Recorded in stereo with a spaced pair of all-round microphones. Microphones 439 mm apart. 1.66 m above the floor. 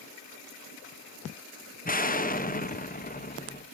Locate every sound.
1.9 s an explosion: 20° left (ahead or behind), 0.9 m